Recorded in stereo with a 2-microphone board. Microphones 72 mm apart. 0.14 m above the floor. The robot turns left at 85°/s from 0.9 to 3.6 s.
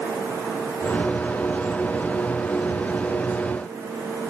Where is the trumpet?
I don't hear a trumpet.